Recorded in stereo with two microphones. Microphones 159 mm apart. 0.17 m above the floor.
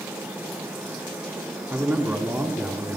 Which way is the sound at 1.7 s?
15° right (ahead or behind).